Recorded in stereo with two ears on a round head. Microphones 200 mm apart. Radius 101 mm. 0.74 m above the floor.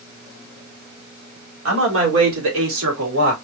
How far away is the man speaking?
About 2.5 m.